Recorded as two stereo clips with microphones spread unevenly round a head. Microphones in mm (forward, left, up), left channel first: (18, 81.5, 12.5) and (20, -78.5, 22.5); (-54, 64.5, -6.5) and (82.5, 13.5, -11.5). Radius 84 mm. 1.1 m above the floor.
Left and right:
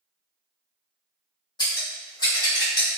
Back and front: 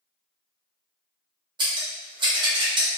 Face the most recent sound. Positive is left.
turn(degrees=30)